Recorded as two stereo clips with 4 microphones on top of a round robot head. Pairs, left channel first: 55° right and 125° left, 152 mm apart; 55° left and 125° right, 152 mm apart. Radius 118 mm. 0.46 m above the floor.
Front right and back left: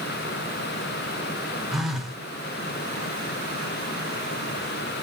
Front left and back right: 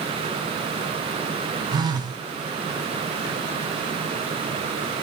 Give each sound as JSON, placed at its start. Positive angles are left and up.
{"t": 1.7, "sound": "a phone buzzing", "azimuth_deg": -150, "distance_m": 0.9}